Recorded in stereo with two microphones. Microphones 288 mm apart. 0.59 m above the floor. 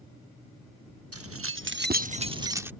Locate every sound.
1.1 s keys jangling: 60° right (ahead or behind); by 2.7 s 10° right (ahead or behind)